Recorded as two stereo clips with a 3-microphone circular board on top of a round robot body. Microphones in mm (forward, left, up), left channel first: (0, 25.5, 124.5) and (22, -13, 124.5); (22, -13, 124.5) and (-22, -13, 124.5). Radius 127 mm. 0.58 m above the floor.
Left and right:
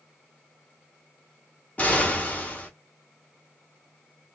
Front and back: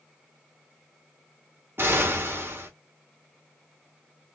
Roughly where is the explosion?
Behind.